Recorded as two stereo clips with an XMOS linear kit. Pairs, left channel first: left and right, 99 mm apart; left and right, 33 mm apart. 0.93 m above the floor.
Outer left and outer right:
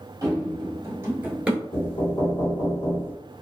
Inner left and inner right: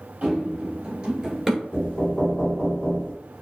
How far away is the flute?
I don't hear a flute.